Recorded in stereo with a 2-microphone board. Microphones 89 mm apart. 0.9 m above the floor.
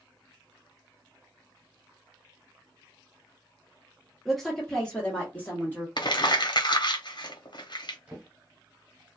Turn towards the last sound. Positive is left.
turn(degrees=-15)  # may be behind; listen again after turning